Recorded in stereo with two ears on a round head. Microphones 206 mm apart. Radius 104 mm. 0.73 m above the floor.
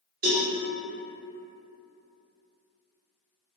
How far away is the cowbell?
About 0.9 m.